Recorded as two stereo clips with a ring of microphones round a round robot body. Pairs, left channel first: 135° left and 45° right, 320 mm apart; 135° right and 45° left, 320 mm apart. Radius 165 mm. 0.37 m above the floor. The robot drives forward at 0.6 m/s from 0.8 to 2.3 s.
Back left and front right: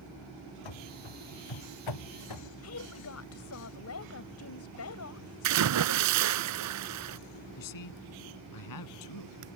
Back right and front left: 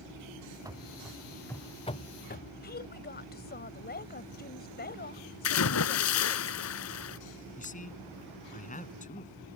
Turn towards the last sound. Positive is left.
turn(degrees=160)